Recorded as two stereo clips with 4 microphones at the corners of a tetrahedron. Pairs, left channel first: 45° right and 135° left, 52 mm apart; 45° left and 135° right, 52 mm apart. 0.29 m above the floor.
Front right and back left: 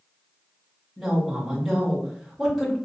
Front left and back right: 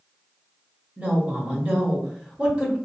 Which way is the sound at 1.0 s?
150° right.